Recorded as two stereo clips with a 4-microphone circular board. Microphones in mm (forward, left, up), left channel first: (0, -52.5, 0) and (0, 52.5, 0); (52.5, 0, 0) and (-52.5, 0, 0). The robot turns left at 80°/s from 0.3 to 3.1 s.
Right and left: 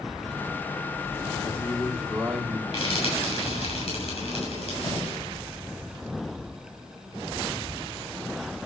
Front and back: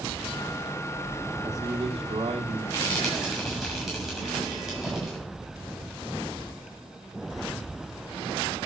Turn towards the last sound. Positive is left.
turn(degrees=-90)